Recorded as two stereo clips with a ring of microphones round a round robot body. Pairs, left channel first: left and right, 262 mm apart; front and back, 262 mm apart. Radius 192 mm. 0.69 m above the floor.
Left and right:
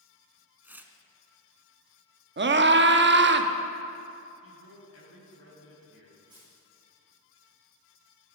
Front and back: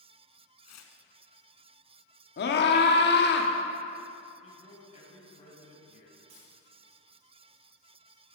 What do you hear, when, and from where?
0.6 s tearing paper: 10° right, 1.2 m
2.4 s a scream: 50° right, 1.0 m
4.4 s a man speaking: 65° left, 4 m
6.3 s a dropped coin: 175° left, 5.5 m